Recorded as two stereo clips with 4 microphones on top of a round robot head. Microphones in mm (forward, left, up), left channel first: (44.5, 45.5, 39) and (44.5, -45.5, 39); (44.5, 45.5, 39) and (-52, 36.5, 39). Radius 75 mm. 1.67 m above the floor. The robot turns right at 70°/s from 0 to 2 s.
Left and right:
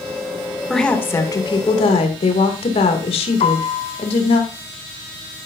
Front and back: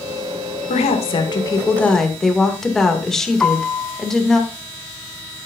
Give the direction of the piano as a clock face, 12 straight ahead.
9 o'clock.